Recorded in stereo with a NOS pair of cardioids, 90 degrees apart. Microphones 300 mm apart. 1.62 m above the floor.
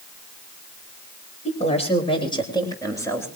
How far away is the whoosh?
No whoosh in this recording.